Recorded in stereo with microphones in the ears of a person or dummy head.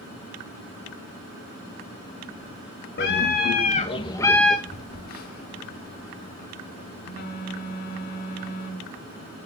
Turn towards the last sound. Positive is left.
turn(degrees=50)  # may be behind; listen again after turning